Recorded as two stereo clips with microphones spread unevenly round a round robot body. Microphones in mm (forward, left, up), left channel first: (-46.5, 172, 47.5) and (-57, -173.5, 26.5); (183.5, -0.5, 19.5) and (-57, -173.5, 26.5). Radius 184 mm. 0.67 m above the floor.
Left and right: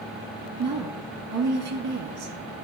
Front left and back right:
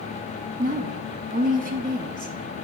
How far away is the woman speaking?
About 1.1 m.